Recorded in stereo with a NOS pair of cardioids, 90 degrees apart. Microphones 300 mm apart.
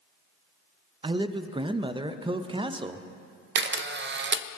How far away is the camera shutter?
About 0.5 m.